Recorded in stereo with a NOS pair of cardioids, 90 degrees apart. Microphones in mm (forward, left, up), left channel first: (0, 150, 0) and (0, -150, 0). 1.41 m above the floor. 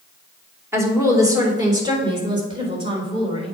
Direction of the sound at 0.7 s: 10° right.